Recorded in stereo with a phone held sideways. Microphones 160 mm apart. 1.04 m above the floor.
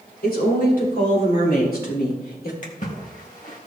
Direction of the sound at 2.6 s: 55° left (ahead or behind).